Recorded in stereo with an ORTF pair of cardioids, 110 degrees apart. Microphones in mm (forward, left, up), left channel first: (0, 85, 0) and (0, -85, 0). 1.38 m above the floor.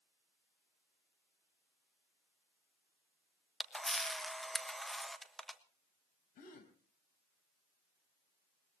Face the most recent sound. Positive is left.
turn(degrees=55)